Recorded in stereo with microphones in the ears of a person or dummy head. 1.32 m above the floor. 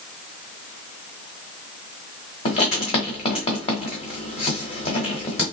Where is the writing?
25° left (ahead or behind), 1.2 m.